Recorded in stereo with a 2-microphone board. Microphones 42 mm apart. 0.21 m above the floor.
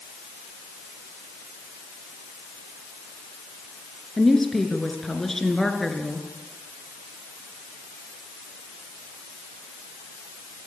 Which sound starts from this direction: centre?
A woman speaking, at 4.2 s.